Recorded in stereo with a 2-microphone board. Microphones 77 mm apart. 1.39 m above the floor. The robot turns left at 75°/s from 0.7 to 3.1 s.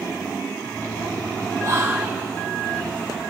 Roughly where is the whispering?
Behind right.